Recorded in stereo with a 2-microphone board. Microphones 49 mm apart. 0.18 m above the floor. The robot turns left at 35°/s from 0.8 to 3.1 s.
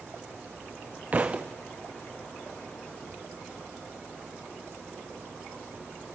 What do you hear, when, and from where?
1.1 s a thud: 35° right (ahead or behind), 0.6 m; by 1.5 s 20° right (ahead or behind), 0.6 m